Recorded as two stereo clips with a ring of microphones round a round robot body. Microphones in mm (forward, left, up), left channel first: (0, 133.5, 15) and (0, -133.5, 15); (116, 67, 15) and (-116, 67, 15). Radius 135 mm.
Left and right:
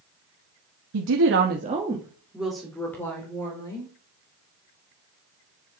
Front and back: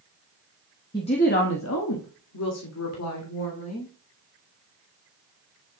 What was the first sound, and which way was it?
A woman speaking, 75° right.